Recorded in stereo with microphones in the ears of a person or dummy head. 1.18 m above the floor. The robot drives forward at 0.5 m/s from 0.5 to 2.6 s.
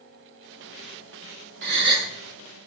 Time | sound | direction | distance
1.6 | a gasp | 55° right (ahead or behind) | 1.2 m